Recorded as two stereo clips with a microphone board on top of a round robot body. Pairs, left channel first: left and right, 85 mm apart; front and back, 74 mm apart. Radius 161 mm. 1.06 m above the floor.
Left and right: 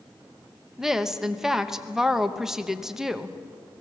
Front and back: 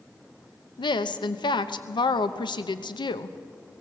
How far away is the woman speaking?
About 1.0 m.